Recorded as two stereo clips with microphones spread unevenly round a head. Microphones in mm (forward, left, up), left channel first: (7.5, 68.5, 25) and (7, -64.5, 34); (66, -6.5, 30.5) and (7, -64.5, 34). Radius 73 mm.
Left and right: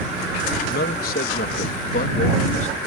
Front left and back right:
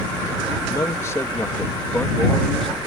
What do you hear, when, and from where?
0.7 s a man speaking: 110° left; by 2.8 s 130° left